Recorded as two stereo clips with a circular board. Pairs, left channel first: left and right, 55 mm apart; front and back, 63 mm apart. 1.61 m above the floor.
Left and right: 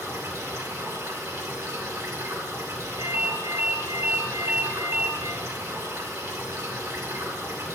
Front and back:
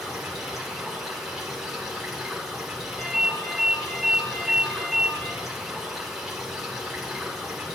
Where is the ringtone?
85° right, 2.5 m.